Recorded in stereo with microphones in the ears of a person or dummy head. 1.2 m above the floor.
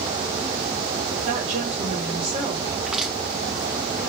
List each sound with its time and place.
1.2 s a woman speaking: 45° right (ahead or behind), 1.4 m; by 2.8 s 25° right (ahead or behind), 1.9 m
2.9 s crushing: centre (ahead or behind), 1.3 m